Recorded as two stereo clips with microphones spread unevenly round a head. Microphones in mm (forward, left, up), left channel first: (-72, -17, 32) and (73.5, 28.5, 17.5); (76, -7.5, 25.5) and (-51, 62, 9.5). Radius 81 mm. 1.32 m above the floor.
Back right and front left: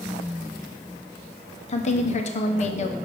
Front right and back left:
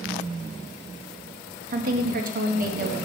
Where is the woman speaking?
150° left, 0.8 m.